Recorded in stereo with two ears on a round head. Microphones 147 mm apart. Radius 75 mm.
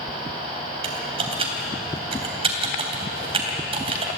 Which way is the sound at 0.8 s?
35° right (ahead or behind).